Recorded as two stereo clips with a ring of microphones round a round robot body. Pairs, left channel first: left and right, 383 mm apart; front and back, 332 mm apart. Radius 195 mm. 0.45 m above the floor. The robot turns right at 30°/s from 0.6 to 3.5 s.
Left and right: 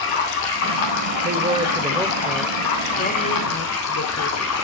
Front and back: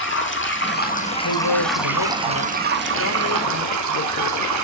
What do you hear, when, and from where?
0.0 s running water: 55° left, 3 m; by 4.6 s 145° left, 3 m
1.2 s a man speaking: 25° right, 1.6 m; by 4.5 s 40° left, 1.6 m